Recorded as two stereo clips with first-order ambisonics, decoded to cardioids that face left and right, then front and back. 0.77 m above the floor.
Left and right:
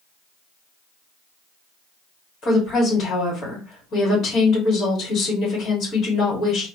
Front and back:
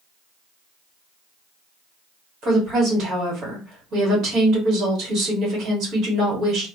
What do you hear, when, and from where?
2.4 s a woman speaking: 140° left, 1.5 m